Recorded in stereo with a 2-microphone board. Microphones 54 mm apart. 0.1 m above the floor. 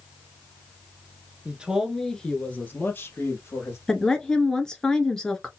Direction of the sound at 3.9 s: 15° left (ahead or behind).